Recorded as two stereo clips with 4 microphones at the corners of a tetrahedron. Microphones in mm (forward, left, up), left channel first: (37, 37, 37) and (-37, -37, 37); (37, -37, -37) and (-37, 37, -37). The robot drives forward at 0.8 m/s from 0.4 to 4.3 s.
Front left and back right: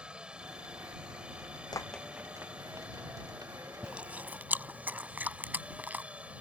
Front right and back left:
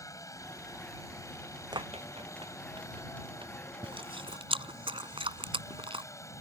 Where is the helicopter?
60° right; by 6.4 s 70° right.